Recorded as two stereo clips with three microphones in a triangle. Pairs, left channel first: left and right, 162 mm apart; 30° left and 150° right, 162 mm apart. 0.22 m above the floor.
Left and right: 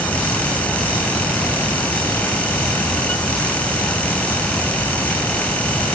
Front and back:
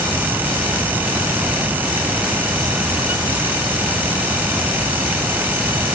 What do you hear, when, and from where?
Only background noise.